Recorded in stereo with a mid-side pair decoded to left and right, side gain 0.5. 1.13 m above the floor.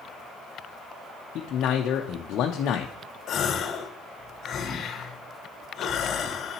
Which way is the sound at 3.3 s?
55° left.